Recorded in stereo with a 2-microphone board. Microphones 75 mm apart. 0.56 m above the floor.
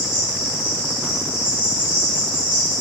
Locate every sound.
0.0 s an insect: 35° left (ahead or behind), 1.0 m